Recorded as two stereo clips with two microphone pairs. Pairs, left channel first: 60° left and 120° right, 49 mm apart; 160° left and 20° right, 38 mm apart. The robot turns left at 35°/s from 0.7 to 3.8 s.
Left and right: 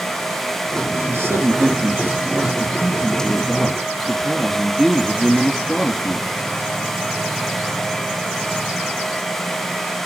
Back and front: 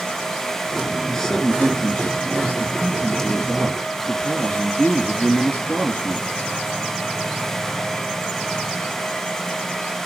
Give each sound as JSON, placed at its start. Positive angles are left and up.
{"t": 1.1, "sound": "a man speaking", "azimuth_deg": -115, "distance_m": 3.0}